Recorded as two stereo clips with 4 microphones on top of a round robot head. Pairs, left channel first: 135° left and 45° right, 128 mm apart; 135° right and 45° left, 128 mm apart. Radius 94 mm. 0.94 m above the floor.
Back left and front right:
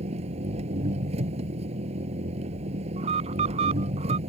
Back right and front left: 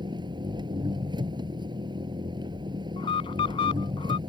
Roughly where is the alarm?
Right.